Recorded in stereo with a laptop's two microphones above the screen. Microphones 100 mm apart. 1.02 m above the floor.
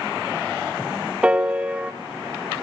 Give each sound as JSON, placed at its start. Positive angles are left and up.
{"t": 1.2, "sound": "a piano", "side_deg": -15, "distance_m": 0.9}